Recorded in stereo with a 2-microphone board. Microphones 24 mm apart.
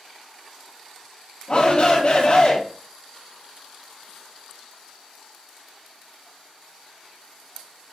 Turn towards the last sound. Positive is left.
turn(degrees=30)  # may be behind; listen again after turning